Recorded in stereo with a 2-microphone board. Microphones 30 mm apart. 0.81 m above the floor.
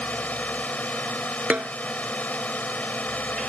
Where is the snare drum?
70° right (ahead or behind).